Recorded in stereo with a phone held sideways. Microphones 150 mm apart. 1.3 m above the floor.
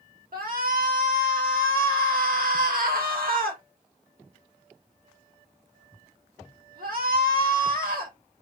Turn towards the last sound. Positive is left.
turn(degrees=-80)